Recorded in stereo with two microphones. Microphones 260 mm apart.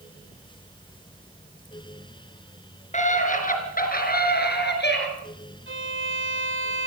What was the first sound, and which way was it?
A scream, 25° left (ahead or behind).